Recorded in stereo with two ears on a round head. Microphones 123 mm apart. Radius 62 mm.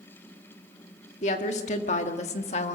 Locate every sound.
1.2 s a woman speaking: 55° left (ahead or behind), 1.9 m; by 2.8 s 50° left (ahead or behind), 1.3 m